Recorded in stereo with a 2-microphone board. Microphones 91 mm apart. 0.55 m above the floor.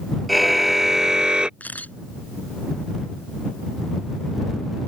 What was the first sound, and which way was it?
A car horn, centre (ahead or behind).